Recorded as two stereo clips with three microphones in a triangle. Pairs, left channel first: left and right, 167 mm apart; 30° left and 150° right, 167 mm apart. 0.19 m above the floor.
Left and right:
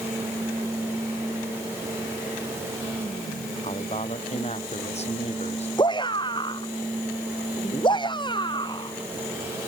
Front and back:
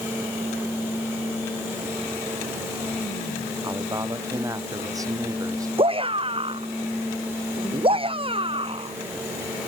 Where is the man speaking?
140° left.